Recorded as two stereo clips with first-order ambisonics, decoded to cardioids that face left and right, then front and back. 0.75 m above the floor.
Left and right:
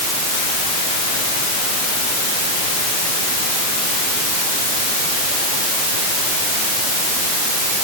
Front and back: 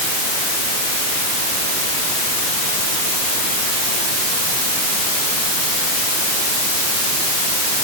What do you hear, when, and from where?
Only background noise.